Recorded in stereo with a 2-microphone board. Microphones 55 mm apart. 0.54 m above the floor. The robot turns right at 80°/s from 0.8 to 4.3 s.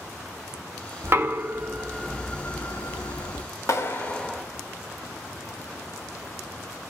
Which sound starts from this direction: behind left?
A clap, at 3.7 s.